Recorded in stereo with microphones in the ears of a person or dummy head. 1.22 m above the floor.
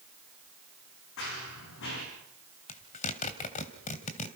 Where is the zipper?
40° left (ahead or behind), 2.5 m.